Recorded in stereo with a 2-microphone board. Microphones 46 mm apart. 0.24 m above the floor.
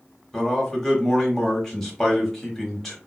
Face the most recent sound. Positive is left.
turn(degrees=10)  # may be behind; listen again after turning